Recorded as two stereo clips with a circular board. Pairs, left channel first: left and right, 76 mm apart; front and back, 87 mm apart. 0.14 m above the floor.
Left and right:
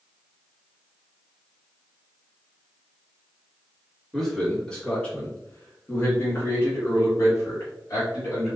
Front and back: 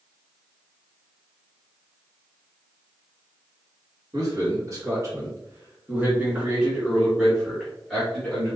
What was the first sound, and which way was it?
A man speaking, 175° left.